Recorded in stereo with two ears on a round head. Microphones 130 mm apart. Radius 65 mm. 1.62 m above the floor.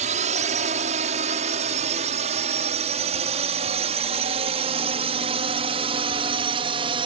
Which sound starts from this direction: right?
A drone, at 0.0 s.